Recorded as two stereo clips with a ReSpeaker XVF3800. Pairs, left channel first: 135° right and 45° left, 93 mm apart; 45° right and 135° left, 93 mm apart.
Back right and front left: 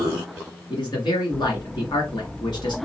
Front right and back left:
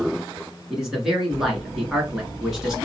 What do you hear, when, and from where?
0.7 s a man speaking: 140° right, 1.8 m